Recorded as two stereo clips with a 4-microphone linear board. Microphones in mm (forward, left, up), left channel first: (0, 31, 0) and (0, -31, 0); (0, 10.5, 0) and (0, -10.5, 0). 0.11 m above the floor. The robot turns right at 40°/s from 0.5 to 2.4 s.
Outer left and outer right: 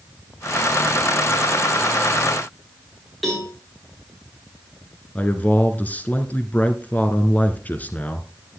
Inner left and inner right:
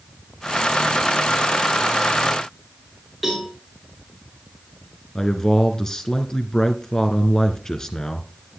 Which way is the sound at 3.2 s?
Centre (ahead or behind).